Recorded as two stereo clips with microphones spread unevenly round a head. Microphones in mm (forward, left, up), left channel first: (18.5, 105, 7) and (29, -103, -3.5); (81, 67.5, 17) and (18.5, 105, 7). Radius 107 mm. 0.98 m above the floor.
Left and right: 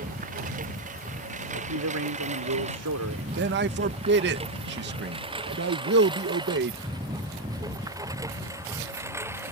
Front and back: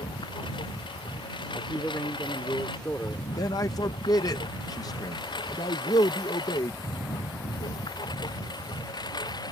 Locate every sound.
0.0 s a lawn mower: 35° right; by 9.5 s 10° right
1.5 s a man speaking: 105° right
3.4 s a man speaking: 70° right